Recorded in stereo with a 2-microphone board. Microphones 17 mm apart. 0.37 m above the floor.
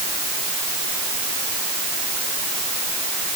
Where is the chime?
I don't hear a chime.